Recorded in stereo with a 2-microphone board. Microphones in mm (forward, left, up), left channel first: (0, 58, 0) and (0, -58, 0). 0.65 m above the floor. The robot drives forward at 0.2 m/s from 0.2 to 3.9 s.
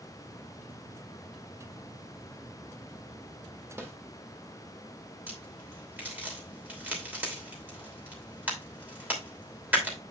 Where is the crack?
15° right (ahead or behind), 3 m.